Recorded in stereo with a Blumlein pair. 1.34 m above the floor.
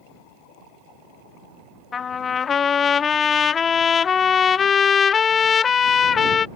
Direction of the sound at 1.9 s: 20° left.